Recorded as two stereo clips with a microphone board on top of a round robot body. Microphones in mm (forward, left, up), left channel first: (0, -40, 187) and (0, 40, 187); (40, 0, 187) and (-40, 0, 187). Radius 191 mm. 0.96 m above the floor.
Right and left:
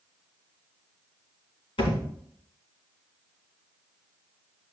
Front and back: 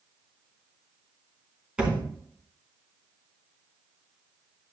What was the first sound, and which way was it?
A thud, 100° right.